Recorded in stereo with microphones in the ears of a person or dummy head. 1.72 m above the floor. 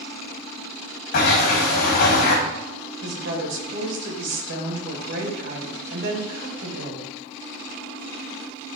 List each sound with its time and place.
1.1 s a sliding door: 60° left (ahead or behind), 2.0 m
3.0 s a woman speaking: 60° right (ahead or behind), 2.5 m